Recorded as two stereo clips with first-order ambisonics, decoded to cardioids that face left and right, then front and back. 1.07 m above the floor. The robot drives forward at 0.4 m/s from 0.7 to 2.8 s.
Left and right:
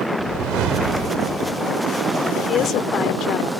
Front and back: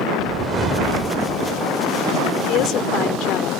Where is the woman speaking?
35° left.